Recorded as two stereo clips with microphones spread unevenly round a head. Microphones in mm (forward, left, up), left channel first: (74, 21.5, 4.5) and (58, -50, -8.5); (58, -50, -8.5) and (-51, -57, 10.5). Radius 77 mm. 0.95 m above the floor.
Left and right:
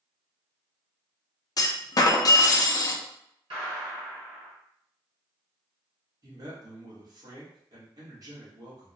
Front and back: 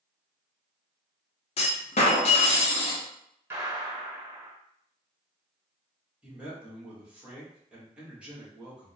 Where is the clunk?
35° left, 0.5 m.